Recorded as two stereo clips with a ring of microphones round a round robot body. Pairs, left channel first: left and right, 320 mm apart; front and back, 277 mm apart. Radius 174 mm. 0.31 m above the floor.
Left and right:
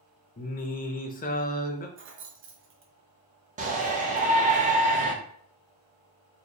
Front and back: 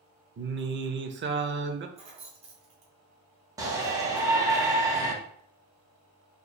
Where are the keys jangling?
120° right, 0.9 m.